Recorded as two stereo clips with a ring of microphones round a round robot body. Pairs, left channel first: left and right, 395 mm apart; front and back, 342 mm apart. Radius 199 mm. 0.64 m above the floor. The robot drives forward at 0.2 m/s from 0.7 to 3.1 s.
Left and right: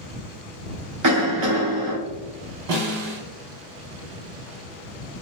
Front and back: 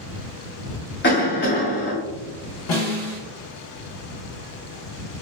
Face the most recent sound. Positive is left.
turn(degrees=-60)